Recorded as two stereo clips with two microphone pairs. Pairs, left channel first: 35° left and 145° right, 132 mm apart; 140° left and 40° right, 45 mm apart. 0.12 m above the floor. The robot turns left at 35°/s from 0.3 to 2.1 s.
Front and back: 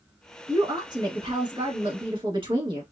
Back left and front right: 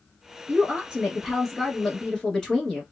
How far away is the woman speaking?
About 1.6 m.